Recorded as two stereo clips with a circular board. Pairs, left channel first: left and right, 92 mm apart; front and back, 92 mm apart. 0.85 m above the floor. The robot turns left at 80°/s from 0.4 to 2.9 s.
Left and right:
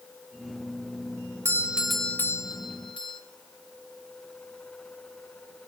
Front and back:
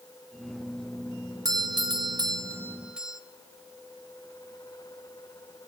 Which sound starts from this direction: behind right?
A doorbell, at 1.4 s.